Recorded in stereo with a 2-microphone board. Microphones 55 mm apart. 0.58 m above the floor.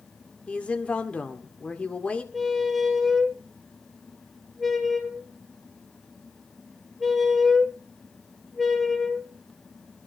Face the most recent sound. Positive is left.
turn(degrees=0)  # may be behind; listen again after turning